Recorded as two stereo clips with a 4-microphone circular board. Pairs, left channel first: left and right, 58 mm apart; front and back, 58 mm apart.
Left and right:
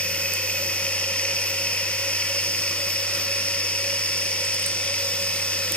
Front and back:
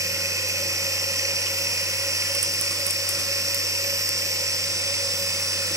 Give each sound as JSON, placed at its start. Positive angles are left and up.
{"t": 0.0, "sound": "running water", "azimuth_deg": 160, "distance_m": 1.6}